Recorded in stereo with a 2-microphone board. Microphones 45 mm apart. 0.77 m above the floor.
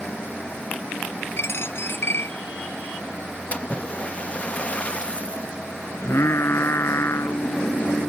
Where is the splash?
30° left (ahead or behind).